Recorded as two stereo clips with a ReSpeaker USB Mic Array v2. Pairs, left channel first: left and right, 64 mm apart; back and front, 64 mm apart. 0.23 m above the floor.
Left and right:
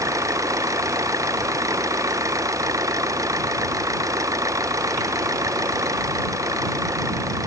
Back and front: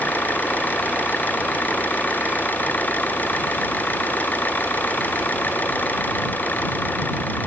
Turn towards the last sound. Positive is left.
turn(degrees=-120)